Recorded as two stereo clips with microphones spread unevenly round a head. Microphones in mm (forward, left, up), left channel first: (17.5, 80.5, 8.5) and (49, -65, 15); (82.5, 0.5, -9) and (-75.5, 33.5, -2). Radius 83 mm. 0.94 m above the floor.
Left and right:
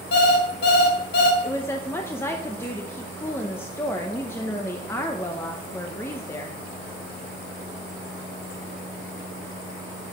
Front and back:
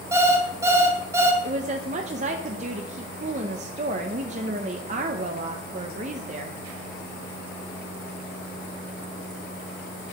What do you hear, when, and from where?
0.1 s an alarm clock: 95° left, 2 m
1.4 s a woman speaking: 165° left, 0.6 m